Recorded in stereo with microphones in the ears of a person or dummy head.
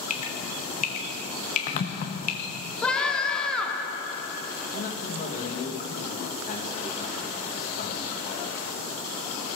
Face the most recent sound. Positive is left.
turn(degrees=50)  # may be behind; listen again after turning